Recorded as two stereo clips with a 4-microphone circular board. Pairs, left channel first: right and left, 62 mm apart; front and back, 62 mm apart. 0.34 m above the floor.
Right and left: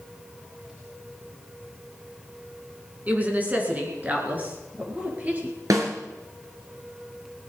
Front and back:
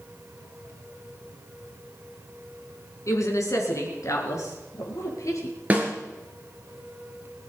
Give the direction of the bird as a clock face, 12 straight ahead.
I don't hear a bird.